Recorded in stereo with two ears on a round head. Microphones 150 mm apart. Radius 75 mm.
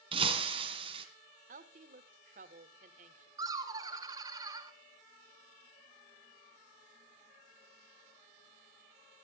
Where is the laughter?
25° right (ahead or behind), 2.5 m.